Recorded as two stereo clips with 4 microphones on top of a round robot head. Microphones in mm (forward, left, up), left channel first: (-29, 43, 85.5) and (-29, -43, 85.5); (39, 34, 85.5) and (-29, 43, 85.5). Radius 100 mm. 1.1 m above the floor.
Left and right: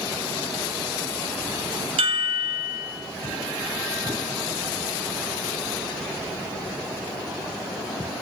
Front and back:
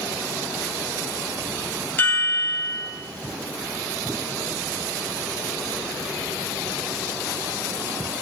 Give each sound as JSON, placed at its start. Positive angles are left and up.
{"t": 2.0, "sound": "a chime", "azimuth_deg": -75, "distance_m": 3.5}